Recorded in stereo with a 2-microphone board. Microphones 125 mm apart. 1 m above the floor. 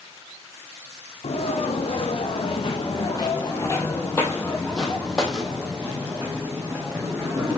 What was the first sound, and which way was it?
Footsteps, 60° left (ahead or behind).